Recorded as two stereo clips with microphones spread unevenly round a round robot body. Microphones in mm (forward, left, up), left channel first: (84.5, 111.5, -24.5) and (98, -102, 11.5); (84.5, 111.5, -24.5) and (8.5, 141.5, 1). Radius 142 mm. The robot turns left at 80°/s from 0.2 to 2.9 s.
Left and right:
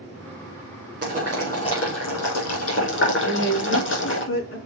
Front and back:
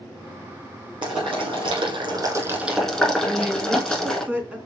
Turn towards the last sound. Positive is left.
turn(degrees=85)